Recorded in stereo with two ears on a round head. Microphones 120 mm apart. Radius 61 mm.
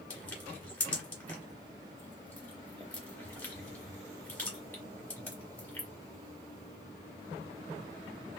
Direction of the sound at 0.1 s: 10° left (ahead or behind).